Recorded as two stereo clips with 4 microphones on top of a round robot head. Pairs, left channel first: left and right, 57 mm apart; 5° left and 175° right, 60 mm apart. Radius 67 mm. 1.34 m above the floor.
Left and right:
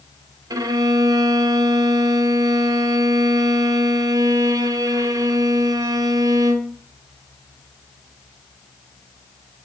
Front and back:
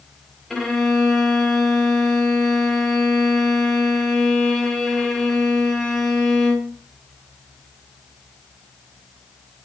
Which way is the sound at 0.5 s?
85° right.